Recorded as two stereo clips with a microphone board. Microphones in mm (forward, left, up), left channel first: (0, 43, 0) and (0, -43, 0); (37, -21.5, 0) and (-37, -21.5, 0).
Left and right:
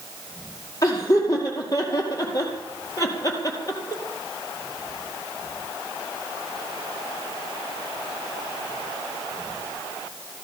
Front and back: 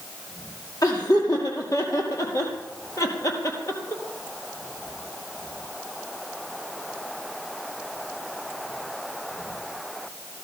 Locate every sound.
0.8 s laughter: 40° left, 5 m; by 4.0 s 45° left, 3.5 m